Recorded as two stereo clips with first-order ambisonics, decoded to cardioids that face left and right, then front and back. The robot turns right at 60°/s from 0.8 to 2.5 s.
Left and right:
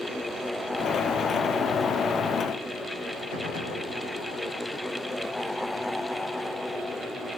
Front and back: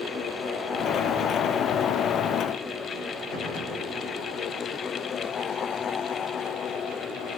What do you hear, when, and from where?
3.3 s a gunshot: 35° left, 6.5 m